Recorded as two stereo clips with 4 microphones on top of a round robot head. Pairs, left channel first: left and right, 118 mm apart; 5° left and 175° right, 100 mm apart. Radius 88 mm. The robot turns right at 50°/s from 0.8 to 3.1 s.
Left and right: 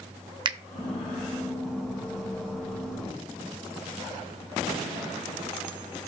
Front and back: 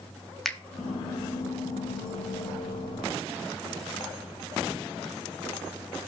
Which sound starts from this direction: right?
A finger snap, at 0.5 s.